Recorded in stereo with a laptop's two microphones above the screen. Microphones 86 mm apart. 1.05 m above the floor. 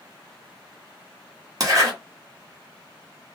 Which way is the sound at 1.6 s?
40° right (ahead or behind).